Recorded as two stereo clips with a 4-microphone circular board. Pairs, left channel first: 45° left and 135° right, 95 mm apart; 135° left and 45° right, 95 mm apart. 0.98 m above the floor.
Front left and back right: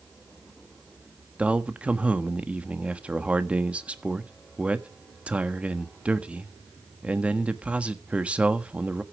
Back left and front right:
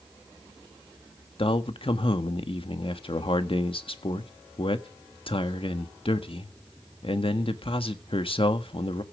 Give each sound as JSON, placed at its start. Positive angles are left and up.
{"t": 1.4, "sound": "a man speaking", "azimuth_deg": 150, "distance_m": 1.4}